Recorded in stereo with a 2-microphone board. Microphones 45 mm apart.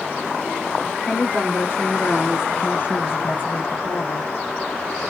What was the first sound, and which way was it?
A woman speaking, 30° left (ahead or behind).